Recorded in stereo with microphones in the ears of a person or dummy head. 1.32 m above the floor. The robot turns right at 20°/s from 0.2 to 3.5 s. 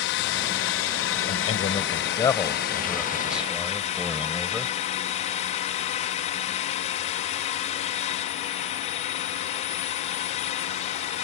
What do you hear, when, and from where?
0.0 s a drone: 75° left; by 11.2 s 140° left
1.3 s a man speaking: 145° left; by 4.8 s 175° right